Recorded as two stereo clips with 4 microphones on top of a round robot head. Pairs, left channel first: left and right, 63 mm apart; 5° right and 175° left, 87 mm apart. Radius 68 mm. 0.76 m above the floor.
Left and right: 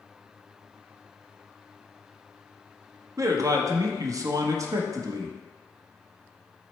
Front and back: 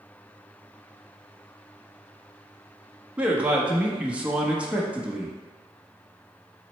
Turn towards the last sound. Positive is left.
turn(degrees=-110)